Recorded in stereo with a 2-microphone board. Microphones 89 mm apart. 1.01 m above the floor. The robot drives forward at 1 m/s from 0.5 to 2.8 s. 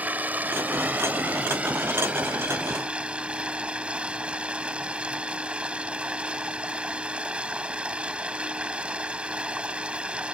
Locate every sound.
0.0 s running water: 15° right (ahead or behind); by 10.4 s 10° right (ahead or behind)